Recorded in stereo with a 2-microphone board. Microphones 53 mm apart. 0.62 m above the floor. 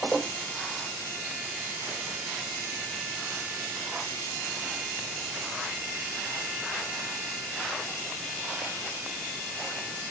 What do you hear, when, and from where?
Only background noise.